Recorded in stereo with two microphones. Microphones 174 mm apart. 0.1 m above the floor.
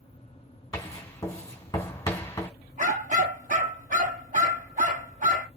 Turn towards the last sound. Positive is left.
turn(degrees=-50)  # may be behind; listen again after turning